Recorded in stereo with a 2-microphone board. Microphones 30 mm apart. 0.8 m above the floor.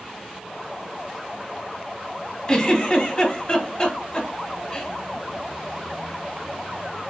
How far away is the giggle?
About 1.2 m.